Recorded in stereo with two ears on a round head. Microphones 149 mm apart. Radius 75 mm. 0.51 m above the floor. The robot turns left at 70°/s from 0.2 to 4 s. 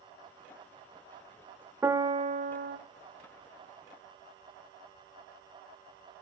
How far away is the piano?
About 1.0 m.